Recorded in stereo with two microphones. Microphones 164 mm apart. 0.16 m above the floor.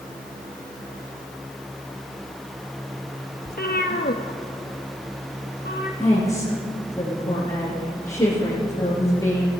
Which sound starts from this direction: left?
A cat meowing, at 3.5 s.